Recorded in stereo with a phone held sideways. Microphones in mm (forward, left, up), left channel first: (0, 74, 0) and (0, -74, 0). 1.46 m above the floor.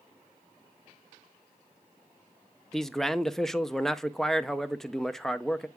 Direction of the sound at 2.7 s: Centre (ahead or behind).